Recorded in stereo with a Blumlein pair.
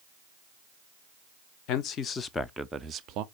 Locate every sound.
1.7 s a man speaking: 40° left, 0.7 m; by 3.2 s 40° right, 0.5 m